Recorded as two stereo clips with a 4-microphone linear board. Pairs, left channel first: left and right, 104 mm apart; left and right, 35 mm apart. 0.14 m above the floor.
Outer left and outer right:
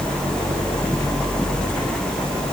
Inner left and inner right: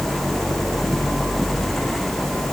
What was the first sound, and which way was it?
Only background noise.